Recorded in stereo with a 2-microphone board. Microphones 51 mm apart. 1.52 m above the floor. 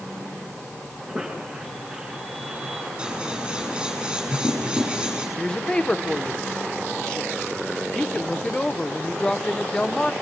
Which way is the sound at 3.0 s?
15° right (ahead or behind).